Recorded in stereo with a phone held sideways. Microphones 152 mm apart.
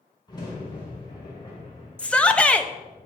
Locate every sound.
0.3 s a crack: 30° left (ahead or behind), 4.5 m
2.0 s a shout: 10° left (ahead or behind), 0.9 m